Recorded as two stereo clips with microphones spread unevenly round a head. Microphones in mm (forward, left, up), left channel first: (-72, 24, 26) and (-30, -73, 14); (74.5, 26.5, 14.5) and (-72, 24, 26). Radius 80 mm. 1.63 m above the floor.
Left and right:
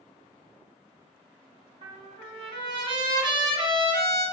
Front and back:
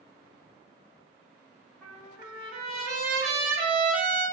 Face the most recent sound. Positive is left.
turn(degrees=-90)